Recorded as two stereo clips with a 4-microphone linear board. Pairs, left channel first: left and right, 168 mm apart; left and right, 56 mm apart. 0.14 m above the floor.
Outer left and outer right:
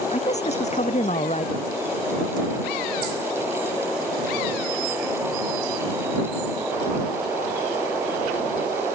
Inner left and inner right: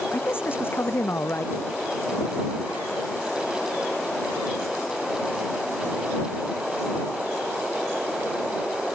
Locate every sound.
0.1 s a man speaking: 40° left (ahead or behind)